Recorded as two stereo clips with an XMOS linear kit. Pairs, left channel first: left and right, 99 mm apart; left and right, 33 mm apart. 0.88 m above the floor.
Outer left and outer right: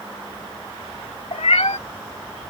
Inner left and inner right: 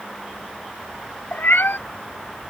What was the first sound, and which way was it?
A cat meowing, 80° left.